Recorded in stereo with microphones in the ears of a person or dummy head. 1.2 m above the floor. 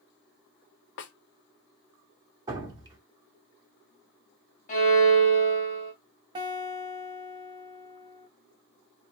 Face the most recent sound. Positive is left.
turn(degrees=-20)  # may be behind; listen again after turning